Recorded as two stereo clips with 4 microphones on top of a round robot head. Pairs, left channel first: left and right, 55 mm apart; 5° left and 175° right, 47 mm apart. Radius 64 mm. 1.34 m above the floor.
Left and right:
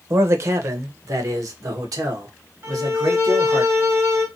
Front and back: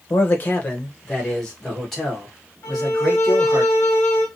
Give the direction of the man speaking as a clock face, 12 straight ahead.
2 o'clock.